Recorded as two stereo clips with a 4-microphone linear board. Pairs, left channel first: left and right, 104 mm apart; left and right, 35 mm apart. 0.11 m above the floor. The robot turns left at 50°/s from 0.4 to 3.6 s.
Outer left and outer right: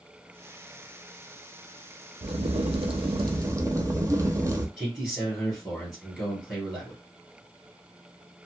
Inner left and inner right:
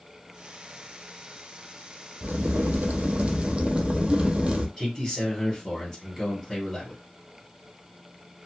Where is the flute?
I don't hear a flute.